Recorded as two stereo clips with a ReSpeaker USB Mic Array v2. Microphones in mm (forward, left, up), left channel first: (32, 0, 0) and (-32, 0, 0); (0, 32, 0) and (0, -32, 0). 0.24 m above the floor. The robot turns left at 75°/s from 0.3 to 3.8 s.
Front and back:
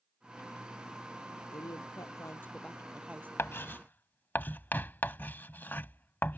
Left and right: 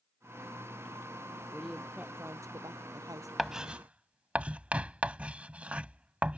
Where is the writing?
5° right; by 6.4 s 35° right.